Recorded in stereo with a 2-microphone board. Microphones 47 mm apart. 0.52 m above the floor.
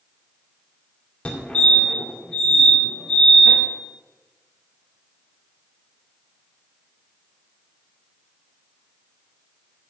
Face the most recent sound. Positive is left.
turn(degrees=20)  # may be behind; listen again after turning